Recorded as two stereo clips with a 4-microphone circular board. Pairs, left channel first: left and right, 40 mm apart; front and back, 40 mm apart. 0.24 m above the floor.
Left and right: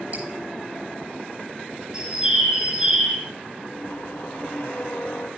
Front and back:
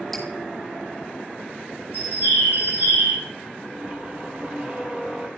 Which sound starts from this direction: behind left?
A squeak, at 3.6 s.